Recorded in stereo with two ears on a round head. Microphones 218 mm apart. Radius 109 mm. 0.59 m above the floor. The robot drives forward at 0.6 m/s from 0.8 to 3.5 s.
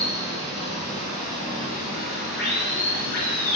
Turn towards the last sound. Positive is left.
turn(degrees=65)  # may be behind; listen again after turning